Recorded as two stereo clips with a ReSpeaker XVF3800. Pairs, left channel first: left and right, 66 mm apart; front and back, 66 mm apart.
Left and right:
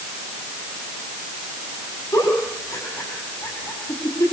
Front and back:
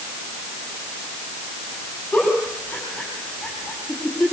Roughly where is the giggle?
Left.